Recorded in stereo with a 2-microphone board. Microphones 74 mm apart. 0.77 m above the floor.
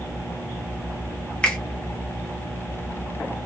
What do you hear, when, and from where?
1.4 s a finger snap: 15° left (ahead or behind), 0.8 m